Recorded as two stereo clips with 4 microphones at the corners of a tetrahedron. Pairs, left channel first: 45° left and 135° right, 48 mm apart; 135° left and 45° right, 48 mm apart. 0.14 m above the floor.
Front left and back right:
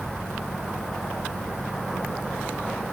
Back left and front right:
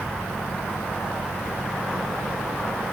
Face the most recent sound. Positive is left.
No sound to turn to.